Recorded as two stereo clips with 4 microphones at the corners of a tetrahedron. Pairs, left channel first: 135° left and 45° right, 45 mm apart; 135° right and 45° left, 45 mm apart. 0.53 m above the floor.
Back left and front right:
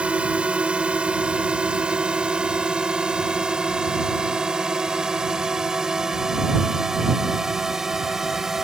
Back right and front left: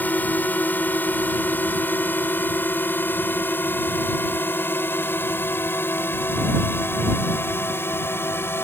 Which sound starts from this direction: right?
A drone, at 0.0 s.